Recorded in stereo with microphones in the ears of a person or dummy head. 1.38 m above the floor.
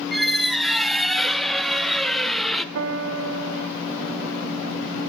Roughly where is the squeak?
Centre.